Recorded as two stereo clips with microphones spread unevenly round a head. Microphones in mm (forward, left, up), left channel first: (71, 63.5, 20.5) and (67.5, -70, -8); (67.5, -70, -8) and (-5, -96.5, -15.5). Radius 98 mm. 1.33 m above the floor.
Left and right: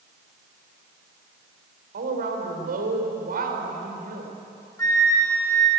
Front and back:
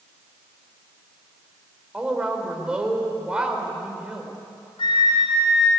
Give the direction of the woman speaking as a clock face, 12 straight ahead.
3 o'clock.